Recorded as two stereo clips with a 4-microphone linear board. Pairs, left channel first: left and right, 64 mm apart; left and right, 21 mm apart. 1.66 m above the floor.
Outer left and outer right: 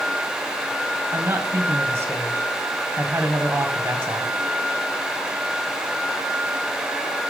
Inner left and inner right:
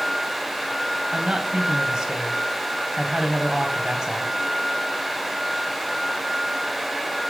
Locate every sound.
1.1 s a man speaking: 40° right (ahead or behind), 1.3 m